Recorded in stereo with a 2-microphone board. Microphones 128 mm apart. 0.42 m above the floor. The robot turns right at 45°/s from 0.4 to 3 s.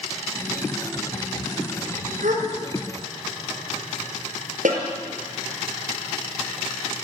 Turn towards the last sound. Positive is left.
turn(degrees=-75)  # may be behind; listen again after turning